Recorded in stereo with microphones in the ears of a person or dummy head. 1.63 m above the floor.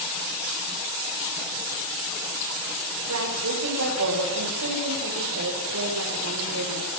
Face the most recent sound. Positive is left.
turn(degrees=-85)